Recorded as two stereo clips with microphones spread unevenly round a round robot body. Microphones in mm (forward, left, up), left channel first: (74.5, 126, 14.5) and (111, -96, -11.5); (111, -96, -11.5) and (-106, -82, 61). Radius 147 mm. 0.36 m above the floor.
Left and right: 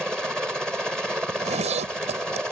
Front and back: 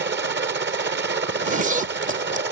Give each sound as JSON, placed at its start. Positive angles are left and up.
{"t": 0.0, "sound": "a helicopter", "azimuth_deg": -165}
{"t": 1.3, "sound": "a zipper", "azimuth_deg": -120}